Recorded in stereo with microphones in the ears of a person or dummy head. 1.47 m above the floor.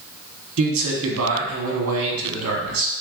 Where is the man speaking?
75° right (ahead or behind), 1.2 m.